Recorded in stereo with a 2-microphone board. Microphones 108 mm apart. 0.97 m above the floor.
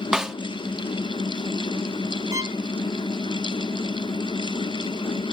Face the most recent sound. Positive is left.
turn(degrees=-30)  # may be behind; listen again after turning